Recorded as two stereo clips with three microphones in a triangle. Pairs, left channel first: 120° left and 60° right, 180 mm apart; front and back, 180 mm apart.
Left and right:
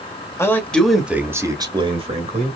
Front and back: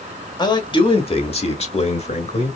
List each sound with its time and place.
0.4 s a man speaking: 50° left, 1.6 m; by 2.6 s 40° right, 1.9 m